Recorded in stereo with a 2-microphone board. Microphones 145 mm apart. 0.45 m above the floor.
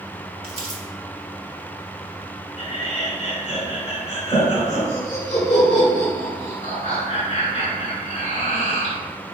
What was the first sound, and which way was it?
Crumpling, 45° right (ahead or behind).